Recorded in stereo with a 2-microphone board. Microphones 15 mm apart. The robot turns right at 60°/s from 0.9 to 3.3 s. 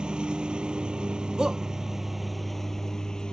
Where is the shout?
50° right (ahead or behind); by 1.6 s 40° right (ahead or behind).